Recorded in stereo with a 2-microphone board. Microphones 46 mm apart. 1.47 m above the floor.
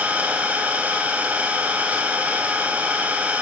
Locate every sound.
0.0 s an engine running: 35° right (ahead or behind), 8 m